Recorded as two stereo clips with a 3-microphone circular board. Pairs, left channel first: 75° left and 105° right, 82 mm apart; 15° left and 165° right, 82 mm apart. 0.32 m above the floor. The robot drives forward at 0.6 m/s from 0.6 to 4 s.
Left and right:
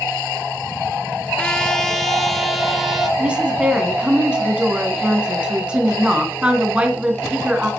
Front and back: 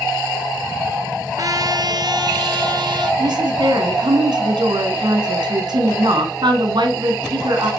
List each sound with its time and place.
1.4 s a trumpet: 150° left, 0.7 m; by 3.1 s 170° left, 1.7 m
3.2 s a woman speaking: straight behind, 2 m